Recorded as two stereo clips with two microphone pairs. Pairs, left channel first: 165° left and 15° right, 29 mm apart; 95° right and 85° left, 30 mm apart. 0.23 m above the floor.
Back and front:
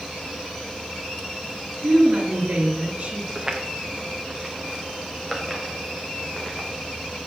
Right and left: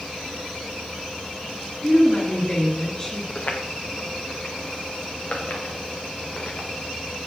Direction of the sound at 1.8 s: 40° right.